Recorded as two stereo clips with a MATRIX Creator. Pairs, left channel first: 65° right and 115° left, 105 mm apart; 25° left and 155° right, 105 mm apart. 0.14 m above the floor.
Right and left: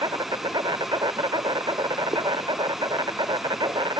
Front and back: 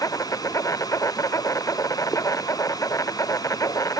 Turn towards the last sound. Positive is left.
turn(degrees=75)